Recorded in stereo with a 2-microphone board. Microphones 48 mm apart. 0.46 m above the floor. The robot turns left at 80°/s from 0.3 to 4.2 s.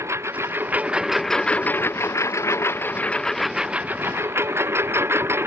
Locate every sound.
0.0 s a lawn mower: 105° right; by 5.5 s 60° right